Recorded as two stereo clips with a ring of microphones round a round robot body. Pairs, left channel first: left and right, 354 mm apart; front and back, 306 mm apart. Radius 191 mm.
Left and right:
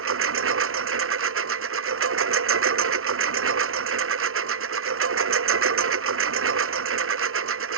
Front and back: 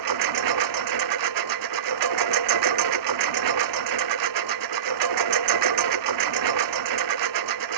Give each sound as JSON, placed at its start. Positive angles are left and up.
{"t": 0.0, "sound": "a lawn mower", "azimuth_deg": -145}